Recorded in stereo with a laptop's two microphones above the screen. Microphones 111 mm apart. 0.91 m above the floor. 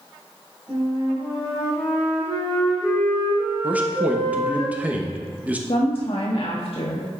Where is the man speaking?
15° right (ahead or behind), 1.0 m.